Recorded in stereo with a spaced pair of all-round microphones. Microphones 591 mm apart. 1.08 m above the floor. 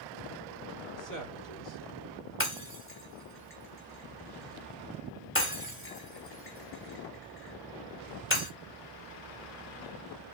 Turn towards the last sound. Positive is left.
turn(degrees=20)  # may be behind; listen again after turning